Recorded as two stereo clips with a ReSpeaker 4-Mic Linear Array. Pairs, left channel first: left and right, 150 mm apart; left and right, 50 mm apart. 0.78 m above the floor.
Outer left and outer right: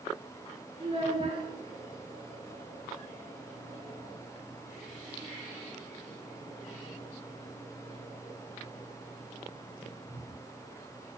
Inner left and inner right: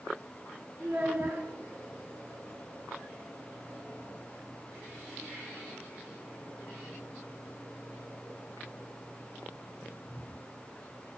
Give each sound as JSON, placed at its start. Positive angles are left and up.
{"t": 0.8, "sound": "a child speaking", "side_deg": -35, "distance_m": 0.7}